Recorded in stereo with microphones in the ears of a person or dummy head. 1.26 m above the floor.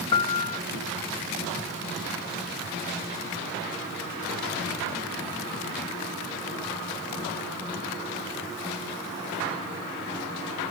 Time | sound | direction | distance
0.1 | a piano | 20° left (ahead or behind) | 0.6 m